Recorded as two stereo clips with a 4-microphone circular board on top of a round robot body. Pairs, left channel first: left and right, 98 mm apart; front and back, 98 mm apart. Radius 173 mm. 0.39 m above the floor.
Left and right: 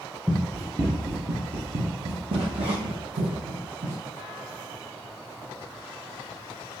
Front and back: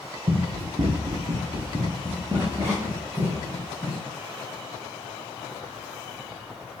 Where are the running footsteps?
170° left, 0.6 m; by 4.0 s 110° right, 2 m.